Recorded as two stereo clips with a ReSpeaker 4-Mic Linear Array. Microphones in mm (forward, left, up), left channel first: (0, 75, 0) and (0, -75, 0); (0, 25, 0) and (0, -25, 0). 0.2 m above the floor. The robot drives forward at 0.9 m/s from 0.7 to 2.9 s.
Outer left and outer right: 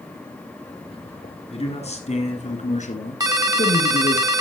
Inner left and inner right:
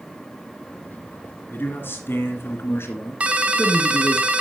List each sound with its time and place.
1.5 s a man speaking: 45° left (ahead or behind), 2.5 m; by 4.2 s 55° left (ahead or behind), 2 m
3.2 s a ringtone: 25° right (ahead or behind), 0.8 m